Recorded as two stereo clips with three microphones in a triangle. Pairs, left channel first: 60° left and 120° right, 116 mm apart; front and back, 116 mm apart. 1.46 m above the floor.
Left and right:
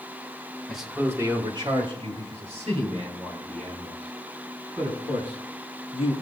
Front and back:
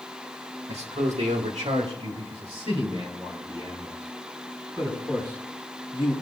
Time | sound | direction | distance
0.7 | a man speaking | 150° left | 1.6 m